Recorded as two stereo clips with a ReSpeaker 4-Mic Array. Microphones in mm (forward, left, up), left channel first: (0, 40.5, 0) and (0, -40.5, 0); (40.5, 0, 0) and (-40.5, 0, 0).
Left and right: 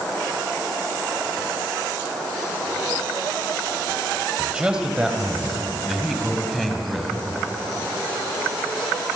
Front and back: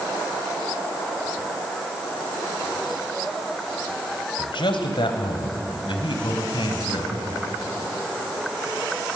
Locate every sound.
4.4 s a man speaking: 10° right, 3 m; by 7.1 s 5° left, 4.5 m